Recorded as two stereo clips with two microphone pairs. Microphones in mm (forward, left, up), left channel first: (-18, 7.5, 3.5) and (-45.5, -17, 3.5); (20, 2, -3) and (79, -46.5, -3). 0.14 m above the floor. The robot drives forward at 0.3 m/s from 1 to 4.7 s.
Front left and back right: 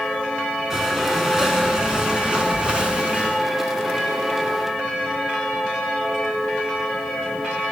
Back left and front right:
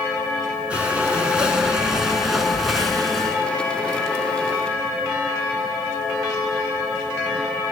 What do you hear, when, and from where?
0.7 s breathing: 85° right, 1.5 m; by 3.4 s 135° right, 1.7 m